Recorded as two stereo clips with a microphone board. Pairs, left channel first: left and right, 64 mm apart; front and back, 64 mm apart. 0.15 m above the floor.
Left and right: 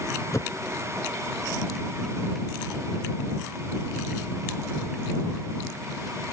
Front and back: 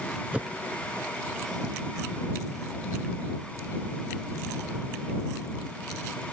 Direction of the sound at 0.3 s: 110° left.